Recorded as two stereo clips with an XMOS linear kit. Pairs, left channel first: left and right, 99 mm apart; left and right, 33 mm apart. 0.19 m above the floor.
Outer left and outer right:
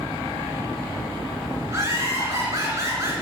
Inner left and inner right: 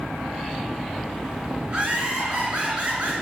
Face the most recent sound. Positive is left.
turn(degrees=-30)  # may be behind; listen again after turning